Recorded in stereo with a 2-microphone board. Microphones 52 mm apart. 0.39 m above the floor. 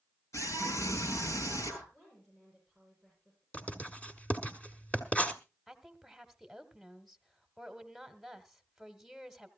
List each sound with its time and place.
0.3 s a scream: 70° left (ahead or behind), 7.5 m
1.9 s a woman speaking: 5° left (ahead or behind), 9 m
3.5 s writing: 25° left (ahead or behind), 1.6 m
5.7 s a woman speaking: 5° right (ahead or behind), 1.3 m